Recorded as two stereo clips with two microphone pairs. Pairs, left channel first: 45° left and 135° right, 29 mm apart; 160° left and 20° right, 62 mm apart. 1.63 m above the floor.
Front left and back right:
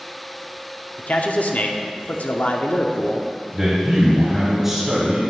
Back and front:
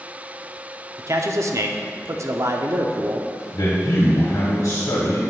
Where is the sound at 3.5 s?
150° left, 1.5 m.